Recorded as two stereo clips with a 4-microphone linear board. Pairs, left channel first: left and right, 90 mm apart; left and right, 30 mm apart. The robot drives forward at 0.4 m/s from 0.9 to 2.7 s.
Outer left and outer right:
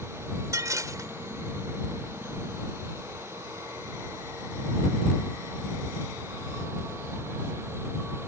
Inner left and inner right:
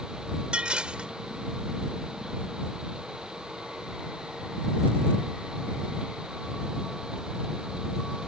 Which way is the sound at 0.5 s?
40° right (ahead or behind).